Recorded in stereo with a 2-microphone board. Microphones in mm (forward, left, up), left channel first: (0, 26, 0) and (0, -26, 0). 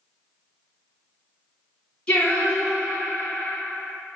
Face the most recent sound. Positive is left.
turn(degrees=20)  # may be behind; listen again after turning